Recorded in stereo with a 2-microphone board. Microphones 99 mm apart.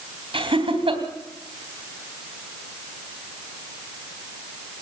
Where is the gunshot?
I don't hear a gunshot.